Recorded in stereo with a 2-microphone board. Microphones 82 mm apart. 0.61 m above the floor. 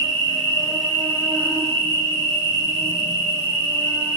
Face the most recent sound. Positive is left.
turn(degrees=25)  # may be behind; listen again after turning